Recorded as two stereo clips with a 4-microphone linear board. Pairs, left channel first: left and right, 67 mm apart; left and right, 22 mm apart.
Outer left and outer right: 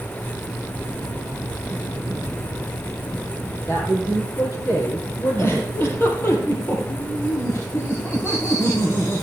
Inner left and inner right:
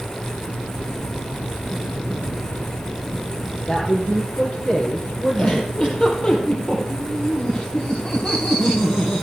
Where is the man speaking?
45° left (ahead or behind), 5 m.